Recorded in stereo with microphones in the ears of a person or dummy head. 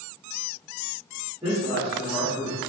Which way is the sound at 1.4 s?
5° right (ahead or behind).